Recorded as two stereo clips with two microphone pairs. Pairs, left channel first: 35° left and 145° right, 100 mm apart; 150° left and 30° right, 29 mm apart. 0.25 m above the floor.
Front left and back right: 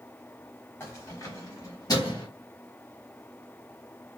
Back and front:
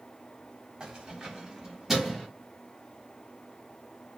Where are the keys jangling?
Straight ahead, 1.1 m; by 2.3 s 55° left, 1.3 m.